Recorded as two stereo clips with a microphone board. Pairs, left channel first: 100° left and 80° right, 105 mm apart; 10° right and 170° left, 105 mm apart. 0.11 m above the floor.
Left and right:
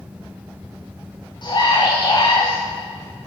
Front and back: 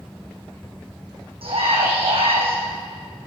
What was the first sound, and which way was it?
A scream, 145° left.